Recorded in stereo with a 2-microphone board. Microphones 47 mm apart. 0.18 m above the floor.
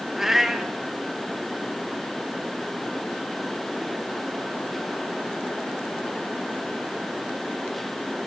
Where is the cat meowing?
5° right (ahead or behind), 2 m.